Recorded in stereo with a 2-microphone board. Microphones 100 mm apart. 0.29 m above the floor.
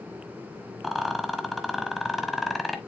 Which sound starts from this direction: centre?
A rattle, at 0.8 s.